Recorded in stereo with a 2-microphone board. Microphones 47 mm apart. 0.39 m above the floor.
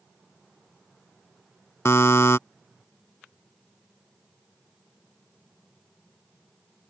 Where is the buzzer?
75° left (ahead or behind).